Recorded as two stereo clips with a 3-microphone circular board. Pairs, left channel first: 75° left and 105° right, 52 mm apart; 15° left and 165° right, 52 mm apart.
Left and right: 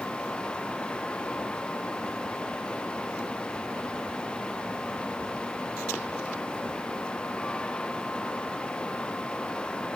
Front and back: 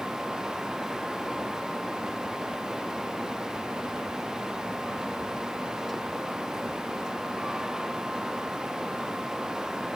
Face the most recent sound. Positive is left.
No sound to turn to.